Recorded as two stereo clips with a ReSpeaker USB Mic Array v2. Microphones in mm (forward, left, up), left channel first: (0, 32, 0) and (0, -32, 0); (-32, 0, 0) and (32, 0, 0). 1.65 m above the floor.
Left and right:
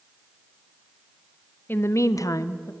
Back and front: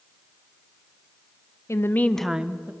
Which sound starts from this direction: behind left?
A woman speaking, at 1.7 s.